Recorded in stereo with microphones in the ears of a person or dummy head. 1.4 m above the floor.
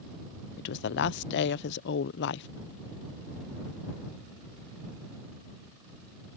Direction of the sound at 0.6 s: 65° left (ahead or behind).